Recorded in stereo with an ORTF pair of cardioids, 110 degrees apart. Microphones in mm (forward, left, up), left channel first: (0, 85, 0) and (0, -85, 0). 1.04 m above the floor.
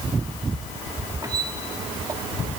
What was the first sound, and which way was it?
A squeak, 20° right.